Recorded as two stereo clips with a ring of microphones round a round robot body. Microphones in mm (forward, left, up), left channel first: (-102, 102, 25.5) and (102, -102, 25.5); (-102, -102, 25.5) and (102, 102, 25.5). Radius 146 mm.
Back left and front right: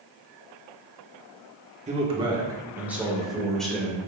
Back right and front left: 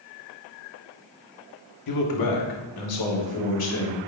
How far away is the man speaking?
About 1.4 m.